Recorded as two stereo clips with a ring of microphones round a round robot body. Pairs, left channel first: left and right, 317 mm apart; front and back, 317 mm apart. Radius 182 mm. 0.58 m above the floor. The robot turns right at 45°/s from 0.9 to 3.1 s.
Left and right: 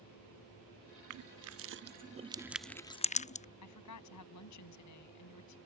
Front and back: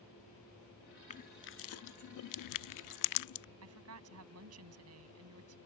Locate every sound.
1.1 s crushing: 70° right; by 3.5 s 20° left
3.6 s a woman speaking: 130° left